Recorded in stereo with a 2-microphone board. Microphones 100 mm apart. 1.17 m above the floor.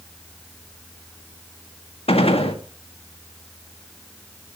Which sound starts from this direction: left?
A gunshot, at 2.1 s.